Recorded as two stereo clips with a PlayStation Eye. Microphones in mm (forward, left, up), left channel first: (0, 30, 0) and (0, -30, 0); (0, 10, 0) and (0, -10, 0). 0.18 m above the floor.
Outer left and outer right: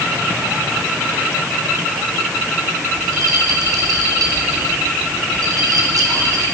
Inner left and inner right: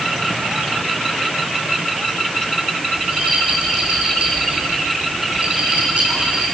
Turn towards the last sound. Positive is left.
turn(degrees=-80)